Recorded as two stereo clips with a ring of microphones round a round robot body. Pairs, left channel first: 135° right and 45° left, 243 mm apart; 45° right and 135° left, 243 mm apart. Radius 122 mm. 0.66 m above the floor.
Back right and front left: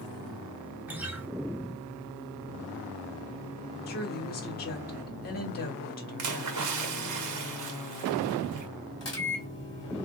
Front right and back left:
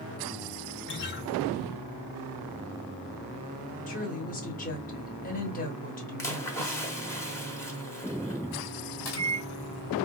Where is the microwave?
60° right, 1.9 m.